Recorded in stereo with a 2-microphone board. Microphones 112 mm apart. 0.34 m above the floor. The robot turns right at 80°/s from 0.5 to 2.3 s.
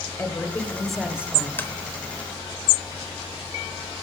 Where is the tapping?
15° left (ahead or behind), 0.9 m; by 1.7 s 20° left (ahead or behind), 0.9 m.